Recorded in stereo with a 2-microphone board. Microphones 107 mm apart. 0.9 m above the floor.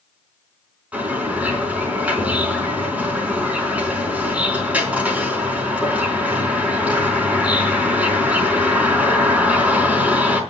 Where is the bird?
15° right (ahead or behind), 4.5 m.